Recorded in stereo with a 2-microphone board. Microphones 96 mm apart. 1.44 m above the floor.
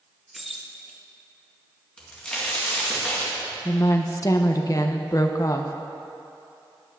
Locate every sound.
0.3 s keys jangling: centre (ahead or behind), 0.8 m
2.0 s a crack: 10° left (ahead or behind), 2 m
3.6 s a woman speaking: 40° left (ahead or behind), 0.7 m